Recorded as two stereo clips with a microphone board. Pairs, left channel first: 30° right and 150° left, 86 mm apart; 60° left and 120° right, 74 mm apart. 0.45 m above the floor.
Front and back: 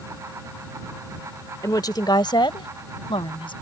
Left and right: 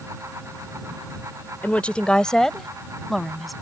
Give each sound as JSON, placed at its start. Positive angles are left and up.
{"t": 1.6, "sound": "a woman speaking", "azimuth_deg": 0}